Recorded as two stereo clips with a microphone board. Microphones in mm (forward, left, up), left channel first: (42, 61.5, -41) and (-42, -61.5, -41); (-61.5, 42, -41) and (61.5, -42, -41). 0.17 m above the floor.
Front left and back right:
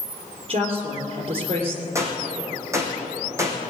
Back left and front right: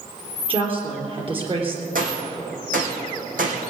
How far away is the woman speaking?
About 3.5 m.